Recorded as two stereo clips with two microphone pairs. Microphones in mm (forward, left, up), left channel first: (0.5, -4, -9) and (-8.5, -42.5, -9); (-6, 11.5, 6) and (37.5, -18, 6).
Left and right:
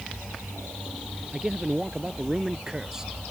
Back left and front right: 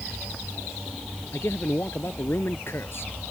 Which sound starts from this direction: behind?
A man speaking, at 1.3 s.